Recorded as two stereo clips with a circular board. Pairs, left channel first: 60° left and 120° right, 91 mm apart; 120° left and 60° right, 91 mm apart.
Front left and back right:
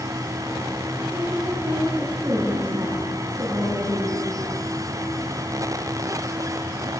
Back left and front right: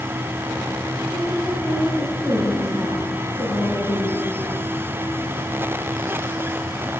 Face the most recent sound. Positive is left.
turn(degrees=-175)